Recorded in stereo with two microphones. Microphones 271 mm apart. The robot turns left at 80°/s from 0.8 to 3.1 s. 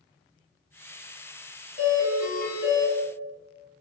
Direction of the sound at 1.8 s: Straight behind.